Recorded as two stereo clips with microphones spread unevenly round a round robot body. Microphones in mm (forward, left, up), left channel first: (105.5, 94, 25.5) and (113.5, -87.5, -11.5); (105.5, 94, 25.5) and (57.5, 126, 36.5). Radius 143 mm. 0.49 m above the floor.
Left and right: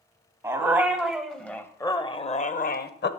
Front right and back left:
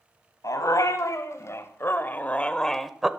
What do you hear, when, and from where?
0.4 s a dog barking: 10° right, 1.5 m; by 3.1 s 60° left, 0.9 m